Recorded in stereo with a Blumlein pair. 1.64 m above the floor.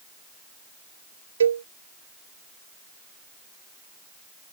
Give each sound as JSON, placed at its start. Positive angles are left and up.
{"t": 1.4, "sound": "a cowbell", "azimuth_deg": -70}